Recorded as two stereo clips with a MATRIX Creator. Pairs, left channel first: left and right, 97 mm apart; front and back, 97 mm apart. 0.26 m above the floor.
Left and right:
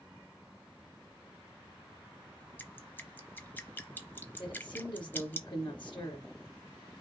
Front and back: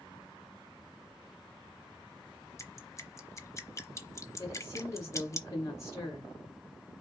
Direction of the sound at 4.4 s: 60° left.